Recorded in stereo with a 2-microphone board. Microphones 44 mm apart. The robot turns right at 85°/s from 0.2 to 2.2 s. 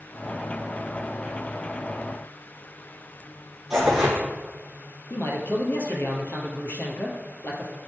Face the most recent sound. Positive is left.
turn(degrees=55)  # may be behind; listen again after turning